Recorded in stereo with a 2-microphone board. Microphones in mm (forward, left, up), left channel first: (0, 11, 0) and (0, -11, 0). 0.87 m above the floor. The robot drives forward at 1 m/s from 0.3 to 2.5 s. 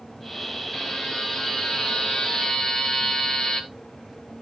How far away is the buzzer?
About 3 m.